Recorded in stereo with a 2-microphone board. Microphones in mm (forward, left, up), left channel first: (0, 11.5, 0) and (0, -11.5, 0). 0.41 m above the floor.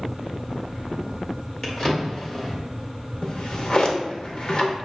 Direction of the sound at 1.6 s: 30° left (ahead or behind).